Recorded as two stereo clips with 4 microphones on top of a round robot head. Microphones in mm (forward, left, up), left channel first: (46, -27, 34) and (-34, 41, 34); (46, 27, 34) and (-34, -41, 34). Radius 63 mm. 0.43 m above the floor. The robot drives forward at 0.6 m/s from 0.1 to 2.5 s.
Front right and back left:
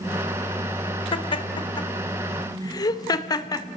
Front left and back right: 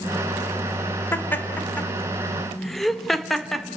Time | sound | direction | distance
1.1 | laughter | 25° right | 2 m